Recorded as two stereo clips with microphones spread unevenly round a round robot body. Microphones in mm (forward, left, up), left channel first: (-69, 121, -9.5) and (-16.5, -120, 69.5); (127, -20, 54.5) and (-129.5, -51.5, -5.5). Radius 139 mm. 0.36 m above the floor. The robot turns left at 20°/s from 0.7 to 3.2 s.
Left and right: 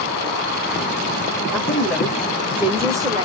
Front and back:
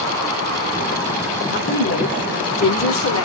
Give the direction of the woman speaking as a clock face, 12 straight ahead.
10 o'clock.